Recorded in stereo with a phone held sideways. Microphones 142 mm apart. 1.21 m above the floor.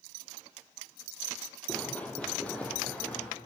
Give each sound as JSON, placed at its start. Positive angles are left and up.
{"t": 1.7, "sound": "running footsteps", "side_deg": 10, "distance_m": 1.7}